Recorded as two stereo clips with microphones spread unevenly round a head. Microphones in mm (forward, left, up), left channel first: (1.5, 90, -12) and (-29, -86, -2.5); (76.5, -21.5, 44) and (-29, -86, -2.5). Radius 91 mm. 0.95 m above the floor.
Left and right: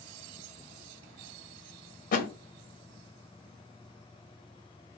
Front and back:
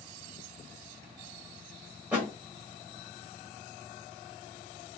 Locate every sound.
2.1 s a thud: 120° left, 0.8 m